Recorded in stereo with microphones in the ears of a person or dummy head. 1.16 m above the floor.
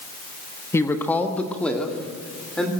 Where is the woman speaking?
10° left (ahead or behind), 1.2 m; by 2.7 s centre (ahead or behind), 3 m.